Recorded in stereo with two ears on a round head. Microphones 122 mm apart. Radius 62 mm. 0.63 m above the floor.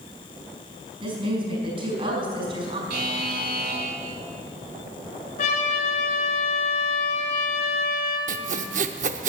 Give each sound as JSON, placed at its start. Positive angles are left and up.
{"t": 1.0, "sound": "a woman speaking", "side_deg": -40, "distance_m": 5.0}
{"t": 2.9, "sound": "a buzzer", "side_deg": -70, "distance_m": 1.7}
{"t": 5.4, "sound": "a trumpet", "side_deg": 50, "distance_m": 4.0}
{"t": 8.3, "sound": "sawing", "side_deg": -60, "distance_m": 0.7}